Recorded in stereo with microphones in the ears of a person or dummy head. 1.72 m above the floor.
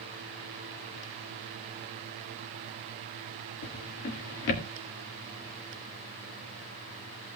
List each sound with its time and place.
3.6 s a drawer: 40° left (ahead or behind), 1.4 m